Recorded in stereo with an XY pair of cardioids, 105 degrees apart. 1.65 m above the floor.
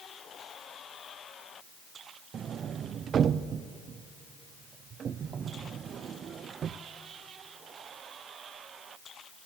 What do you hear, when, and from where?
2.3 s a sliding door: 55° right, 0.6 m